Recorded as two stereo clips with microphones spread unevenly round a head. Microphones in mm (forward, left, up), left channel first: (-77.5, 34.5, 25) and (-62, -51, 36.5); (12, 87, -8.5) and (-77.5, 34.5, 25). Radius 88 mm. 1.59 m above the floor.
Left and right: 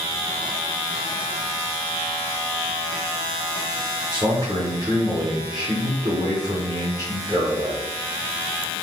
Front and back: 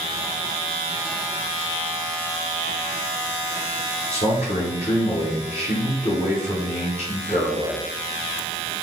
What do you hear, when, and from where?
4.1 s a man speaking: 15° right, 0.9 m